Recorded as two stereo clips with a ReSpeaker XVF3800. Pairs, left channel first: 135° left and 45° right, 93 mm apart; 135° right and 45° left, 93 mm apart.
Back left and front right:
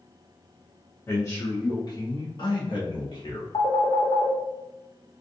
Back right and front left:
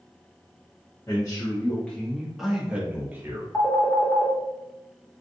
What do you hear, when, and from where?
1.1 s a man speaking: 170° right, 1.1 m; by 3.4 s 110° left, 1.5 m
3.5 s a phone ringing: 160° left, 0.9 m